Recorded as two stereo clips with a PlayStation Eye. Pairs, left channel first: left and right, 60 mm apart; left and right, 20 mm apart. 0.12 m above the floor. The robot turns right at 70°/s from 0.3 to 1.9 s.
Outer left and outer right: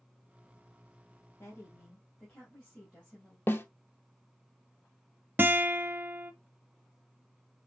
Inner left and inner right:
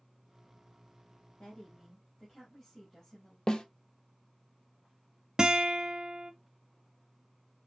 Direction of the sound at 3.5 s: 40° left (ahead or behind).